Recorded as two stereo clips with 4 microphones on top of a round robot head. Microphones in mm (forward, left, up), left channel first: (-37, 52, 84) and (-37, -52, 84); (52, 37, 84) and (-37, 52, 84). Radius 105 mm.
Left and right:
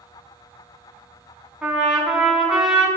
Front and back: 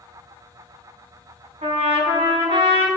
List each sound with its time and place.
1.6 s a trumpet: 170° right, 3.5 m